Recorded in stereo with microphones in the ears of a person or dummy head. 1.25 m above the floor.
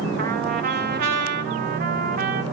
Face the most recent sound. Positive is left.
turn(degrees=-55)  # may be behind; listen again after turning